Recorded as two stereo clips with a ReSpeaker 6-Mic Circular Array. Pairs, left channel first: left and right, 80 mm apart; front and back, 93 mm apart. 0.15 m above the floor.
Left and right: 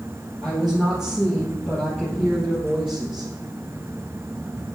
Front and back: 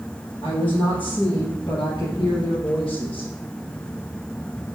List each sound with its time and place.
0.4 s a woman speaking: 5° right, 2.5 m; by 3.3 s 5° left, 4 m